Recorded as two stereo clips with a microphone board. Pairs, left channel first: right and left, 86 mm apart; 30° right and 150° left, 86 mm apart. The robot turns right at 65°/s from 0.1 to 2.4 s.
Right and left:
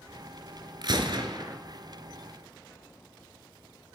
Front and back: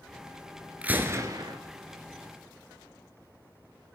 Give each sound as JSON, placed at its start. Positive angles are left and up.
{"t": 0.8, "sound": "a gunshot", "azimuth_deg": 75, "distance_m": 1.0}